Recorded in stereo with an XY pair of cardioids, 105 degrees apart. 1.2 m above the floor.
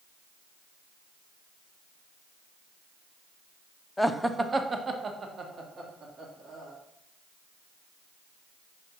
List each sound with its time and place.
4.0 s laughter: 10° left, 0.6 m; by 6.7 s 55° right, 2.5 m